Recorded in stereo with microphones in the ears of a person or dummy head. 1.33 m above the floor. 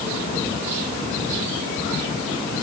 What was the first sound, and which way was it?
Only background noise.